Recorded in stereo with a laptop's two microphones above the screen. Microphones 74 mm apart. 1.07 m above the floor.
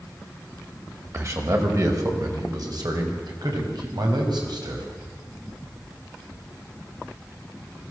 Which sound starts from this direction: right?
A man speaking, at 1.1 s.